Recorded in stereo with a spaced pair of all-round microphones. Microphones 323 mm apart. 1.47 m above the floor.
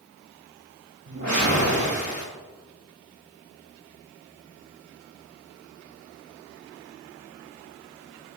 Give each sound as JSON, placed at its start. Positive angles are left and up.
{"t": 1.1, "sound": "a whoosh", "side_deg": -55, "distance_m": 2.5}